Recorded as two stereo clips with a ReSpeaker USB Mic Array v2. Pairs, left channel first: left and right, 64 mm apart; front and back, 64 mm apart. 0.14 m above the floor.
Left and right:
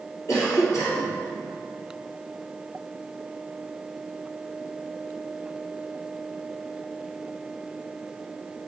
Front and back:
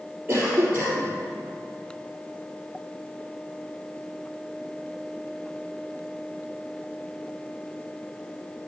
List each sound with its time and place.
0.3 s a cough: 115° left, 3.5 m